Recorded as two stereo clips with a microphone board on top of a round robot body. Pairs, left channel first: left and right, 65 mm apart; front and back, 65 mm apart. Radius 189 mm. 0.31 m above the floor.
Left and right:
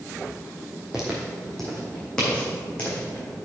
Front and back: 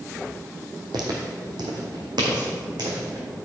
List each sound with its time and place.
0.9 s footsteps: 170° right, 1.4 m; by 3.4 s 160° left, 2 m